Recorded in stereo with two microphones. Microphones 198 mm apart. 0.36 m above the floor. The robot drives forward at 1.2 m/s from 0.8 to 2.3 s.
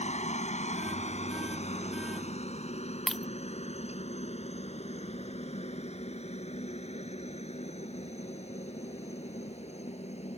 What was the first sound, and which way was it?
A helicopter, 35° left (ahead or behind).